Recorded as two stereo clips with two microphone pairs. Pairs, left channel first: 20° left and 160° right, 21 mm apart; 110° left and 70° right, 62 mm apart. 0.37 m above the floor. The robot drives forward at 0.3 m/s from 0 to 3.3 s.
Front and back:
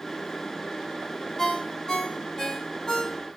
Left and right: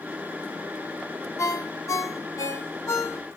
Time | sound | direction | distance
1.4 | a ringtone | 70° left | 1.5 m